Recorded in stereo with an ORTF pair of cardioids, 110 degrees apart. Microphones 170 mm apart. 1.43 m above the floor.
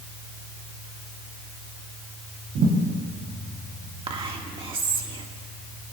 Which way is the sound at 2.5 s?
65° right.